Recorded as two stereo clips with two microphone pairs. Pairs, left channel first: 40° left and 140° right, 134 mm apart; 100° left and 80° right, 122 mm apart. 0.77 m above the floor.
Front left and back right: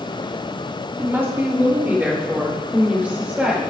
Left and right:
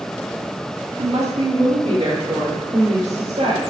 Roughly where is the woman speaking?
Right.